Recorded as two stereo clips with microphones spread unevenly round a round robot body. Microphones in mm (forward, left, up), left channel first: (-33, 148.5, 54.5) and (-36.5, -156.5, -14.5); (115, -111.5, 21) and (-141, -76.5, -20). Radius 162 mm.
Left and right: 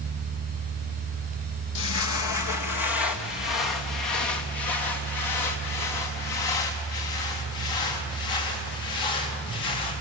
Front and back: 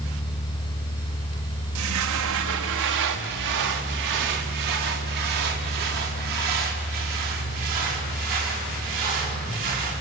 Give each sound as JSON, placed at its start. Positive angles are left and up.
{"t": 1.8, "sound": "footsteps", "azimuth_deg": 120, "distance_m": 1.2}